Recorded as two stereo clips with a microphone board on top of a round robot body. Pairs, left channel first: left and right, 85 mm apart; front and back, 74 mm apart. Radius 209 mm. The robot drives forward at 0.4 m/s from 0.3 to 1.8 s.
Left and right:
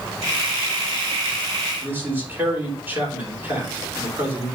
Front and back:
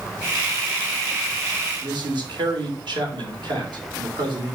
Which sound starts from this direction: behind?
A man speaking, at 1.8 s.